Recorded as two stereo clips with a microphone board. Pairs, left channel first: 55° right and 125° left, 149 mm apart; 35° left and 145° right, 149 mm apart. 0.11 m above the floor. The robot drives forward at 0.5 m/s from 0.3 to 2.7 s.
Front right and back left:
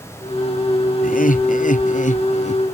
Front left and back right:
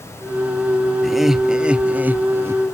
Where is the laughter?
55° right; by 2.6 s 80° right.